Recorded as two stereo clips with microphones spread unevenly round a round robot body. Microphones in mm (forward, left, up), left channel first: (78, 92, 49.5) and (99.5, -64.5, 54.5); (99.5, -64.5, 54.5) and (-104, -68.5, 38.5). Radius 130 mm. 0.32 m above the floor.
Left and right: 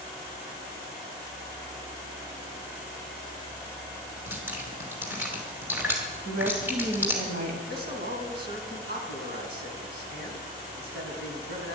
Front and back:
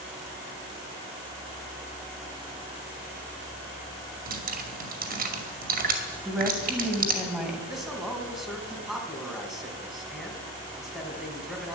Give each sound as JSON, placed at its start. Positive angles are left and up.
{"t": 4.3, "sound": "dripping", "azimuth_deg": -160, "distance_m": 2.5}
{"t": 6.2, "sound": "a woman speaking", "azimuth_deg": -95, "distance_m": 2.5}
{"t": 7.7, "sound": "a man speaking", "azimuth_deg": -90, "distance_m": 3.5}